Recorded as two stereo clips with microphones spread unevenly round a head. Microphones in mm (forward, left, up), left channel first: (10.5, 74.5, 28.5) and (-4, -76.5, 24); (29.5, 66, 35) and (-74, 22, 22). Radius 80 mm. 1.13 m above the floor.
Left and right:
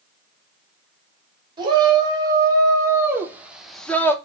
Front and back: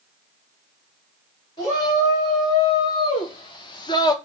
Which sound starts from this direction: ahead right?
A shout, at 1.6 s.